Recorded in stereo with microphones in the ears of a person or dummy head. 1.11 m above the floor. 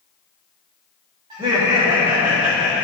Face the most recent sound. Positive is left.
turn(degrees=-20)  # may be behind; listen again after turning